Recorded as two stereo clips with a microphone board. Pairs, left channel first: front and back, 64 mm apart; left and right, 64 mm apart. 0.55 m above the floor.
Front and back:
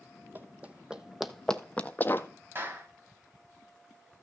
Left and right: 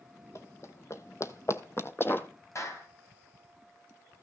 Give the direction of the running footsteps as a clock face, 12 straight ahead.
8 o'clock.